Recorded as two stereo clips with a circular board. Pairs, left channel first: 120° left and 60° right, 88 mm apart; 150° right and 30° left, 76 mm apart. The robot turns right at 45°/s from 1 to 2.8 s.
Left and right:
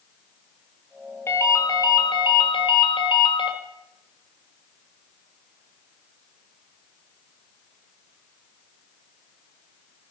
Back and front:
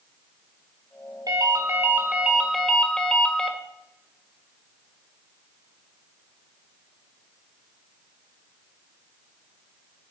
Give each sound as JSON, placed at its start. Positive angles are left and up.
{"t": 1.3, "sound": "a ringtone", "azimuth_deg": 60, "distance_m": 1.8}